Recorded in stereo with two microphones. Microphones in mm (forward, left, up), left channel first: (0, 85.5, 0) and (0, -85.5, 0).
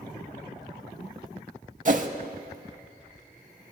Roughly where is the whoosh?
Right.